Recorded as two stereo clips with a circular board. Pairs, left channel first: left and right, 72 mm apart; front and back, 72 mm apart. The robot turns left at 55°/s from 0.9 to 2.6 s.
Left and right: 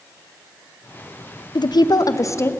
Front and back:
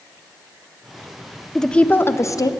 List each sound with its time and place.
1.6 s a woman speaking: 85° left, 0.5 m; by 2.5 s 35° left, 0.5 m